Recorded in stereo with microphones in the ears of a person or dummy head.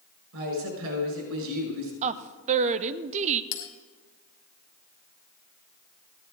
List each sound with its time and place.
0.3 s a woman speaking: 70° right (ahead or behind), 6 m
2.0 s a woman speaking: 30° right (ahead or behind), 0.5 m
3.5 s a bell: 40° left (ahead or behind), 1.4 m